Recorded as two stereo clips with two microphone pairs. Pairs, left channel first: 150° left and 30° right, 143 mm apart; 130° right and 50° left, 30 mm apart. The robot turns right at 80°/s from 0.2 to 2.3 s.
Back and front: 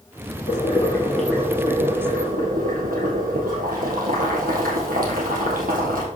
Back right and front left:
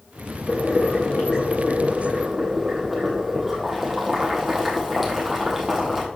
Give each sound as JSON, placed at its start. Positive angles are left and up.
{"t": 0.5, "sound": "boiling", "azimuth_deg": 180, "distance_m": 2.5}